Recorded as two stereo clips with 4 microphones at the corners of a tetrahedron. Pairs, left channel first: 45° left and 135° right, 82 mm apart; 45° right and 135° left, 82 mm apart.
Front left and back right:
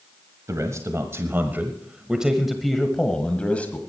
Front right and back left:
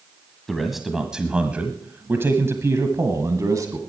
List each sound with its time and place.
0.5 s a man speaking: 130° right, 1.4 m; by 3.8 s 110° left, 1.6 m